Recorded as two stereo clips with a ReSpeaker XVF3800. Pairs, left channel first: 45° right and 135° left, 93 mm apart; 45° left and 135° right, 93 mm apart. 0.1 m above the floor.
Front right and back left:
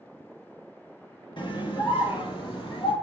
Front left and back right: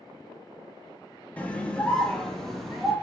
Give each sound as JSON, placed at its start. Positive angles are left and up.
{"t": 1.4, "sound": "a scream", "azimuth_deg": -25, "distance_m": 2.5}